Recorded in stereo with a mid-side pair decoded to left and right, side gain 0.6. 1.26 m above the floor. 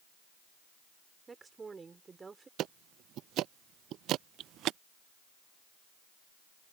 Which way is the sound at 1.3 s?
25° right.